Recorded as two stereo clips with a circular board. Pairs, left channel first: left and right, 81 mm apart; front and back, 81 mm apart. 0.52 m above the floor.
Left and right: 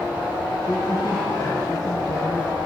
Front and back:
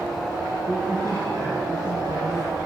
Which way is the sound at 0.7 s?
135° left.